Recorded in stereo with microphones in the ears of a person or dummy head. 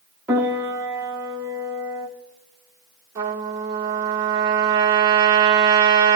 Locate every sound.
0.3 s a piano: 5° right (ahead or behind), 1.6 m
3.1 s a trumpet: 15° right (ahead or behind), 2 m